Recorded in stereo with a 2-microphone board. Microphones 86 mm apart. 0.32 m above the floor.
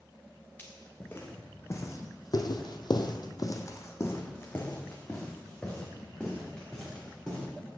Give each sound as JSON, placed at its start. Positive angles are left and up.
{"t": 0.6, "sound": "footsteps", "side_deg": 20, "distance_m": 1.5}